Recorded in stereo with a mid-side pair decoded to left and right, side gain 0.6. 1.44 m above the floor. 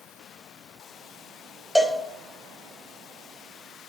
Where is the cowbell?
10° left, 1.0 m.